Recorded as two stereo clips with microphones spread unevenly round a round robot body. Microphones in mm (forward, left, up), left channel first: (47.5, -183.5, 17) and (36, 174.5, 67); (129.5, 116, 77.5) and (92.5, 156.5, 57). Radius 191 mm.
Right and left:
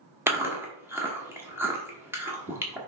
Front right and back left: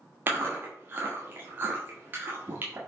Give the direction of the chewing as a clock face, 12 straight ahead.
6 o'clock.